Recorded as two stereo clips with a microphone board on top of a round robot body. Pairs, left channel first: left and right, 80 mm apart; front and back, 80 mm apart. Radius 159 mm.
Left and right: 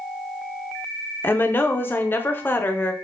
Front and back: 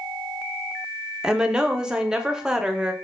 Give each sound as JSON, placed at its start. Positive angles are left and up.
{"t": 1.2, "sound": "a woman speaking", "azimuth_deg": 110, "distance_m": 0.9}